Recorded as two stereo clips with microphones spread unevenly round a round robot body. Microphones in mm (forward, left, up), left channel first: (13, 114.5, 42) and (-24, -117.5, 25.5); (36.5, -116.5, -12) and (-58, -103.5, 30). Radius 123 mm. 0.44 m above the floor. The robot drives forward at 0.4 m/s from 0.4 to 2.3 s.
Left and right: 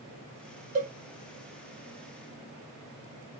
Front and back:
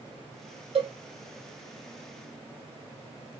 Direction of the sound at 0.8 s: 155° right.